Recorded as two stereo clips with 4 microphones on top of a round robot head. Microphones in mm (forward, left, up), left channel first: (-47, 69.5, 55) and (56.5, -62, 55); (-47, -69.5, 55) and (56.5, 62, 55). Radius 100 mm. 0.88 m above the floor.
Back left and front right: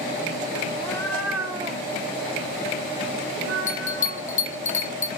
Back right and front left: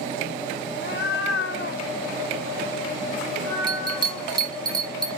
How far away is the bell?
About 1.0 m.